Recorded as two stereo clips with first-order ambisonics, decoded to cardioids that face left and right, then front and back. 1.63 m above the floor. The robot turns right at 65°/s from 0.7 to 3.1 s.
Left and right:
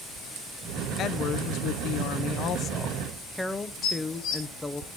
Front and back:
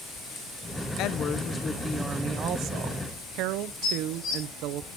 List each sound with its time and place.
1.0 s a woman speaking: 35° left, 0.7 m; by 4.8 s 170° left, 0.7 m
3.8 s dishes clattering: 50° left, 3.5 m